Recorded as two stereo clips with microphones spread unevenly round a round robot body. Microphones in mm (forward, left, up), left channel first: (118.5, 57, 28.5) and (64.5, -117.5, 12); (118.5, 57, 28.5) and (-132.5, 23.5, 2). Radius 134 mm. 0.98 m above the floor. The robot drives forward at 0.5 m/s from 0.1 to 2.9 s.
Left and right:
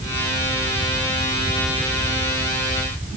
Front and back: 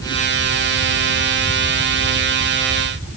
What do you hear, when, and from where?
Only background noise.